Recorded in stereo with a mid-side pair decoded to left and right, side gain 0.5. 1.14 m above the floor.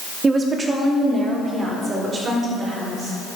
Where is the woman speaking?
35° right, 2.5 m.